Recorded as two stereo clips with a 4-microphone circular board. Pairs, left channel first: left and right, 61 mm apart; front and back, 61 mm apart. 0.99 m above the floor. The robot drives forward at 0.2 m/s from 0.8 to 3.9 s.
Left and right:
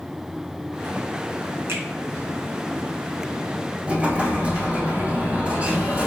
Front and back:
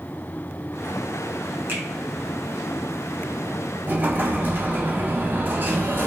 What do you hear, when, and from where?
1.7 s a finger snap: 130° right, 1.3 m
3.9 s an explosion: 150° right, 0.8 m